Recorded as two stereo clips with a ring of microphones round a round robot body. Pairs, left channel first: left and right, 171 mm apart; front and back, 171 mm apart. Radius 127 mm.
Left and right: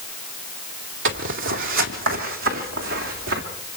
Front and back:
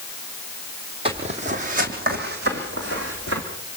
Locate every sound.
1.1 s footsteps: 110° right, 1.7 m; by 3.4 s 130° right, 3 m